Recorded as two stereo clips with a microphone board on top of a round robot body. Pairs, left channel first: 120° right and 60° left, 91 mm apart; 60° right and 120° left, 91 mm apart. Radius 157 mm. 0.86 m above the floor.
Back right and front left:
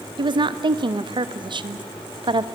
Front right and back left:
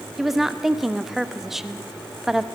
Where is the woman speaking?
35° left, 1.1 m.